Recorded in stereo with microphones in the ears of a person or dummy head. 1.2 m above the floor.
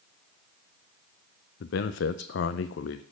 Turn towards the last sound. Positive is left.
turn(degrees=65)  # may be behind; listen again after turning